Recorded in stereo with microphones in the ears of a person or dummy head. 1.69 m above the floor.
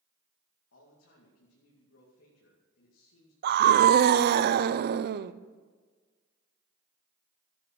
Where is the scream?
65° right (ahead or behind), 0.7 m.